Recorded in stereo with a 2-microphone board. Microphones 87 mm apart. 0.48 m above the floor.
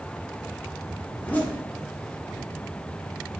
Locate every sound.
1.1 s a zipper: 20° left (ahead or behind), 0.6 m